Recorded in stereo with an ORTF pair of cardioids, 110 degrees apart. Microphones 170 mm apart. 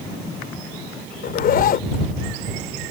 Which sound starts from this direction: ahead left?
A zipper, at 1.2 s.